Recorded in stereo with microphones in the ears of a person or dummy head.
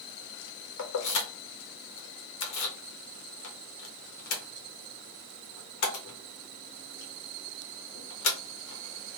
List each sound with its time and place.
0.8 s keys jangling: 85° left, 0.9 m